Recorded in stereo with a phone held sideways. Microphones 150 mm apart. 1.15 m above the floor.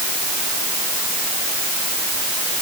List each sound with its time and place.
Only background noise.